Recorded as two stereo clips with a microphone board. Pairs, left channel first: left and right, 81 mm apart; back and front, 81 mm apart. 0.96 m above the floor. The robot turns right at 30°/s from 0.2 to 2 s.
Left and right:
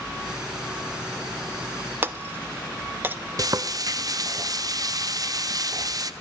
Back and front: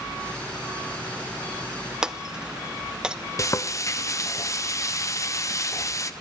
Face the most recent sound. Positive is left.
turn(degrees=-130)